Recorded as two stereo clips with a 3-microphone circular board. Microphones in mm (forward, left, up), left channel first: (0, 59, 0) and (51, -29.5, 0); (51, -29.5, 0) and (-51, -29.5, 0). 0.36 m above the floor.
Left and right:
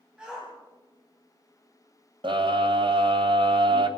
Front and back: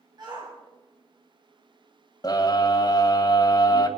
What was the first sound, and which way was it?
A shout, 140° right.